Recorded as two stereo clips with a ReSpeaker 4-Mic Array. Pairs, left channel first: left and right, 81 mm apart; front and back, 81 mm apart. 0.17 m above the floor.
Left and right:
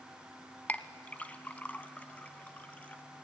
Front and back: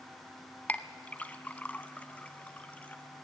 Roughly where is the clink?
Ahead left.